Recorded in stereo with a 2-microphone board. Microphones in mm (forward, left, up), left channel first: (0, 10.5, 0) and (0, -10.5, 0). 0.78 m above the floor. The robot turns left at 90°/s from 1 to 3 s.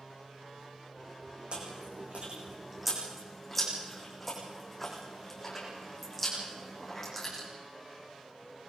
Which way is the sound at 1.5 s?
55° right (ahead or behind).